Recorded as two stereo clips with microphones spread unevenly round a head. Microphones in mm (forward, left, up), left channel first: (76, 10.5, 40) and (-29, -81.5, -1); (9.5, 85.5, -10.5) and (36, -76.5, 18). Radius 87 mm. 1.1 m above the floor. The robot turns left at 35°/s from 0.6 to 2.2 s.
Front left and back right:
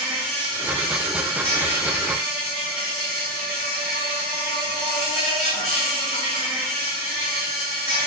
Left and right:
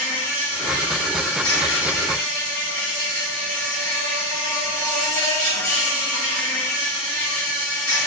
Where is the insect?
175° left, 1.4 m; by 8.1 s 120° left, 1.4 m.